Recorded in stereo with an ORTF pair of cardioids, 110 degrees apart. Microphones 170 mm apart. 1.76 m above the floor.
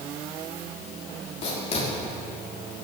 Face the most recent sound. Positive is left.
turn(degrees=40)